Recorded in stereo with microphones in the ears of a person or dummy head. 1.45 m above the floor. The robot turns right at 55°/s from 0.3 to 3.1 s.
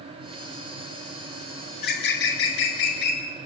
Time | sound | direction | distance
1.7 | a bird | 45° left | 4 m